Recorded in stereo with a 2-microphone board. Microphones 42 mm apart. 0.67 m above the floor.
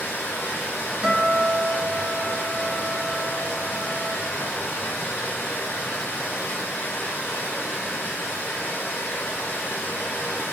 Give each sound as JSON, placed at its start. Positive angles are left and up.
{"t": 0.0, "sound": "running water", "side_deg": 65, "distance_m": 1.8}
{"t": 1.0, "sound": "a guitar", "side_deg": -25, "distance_m": 1.6}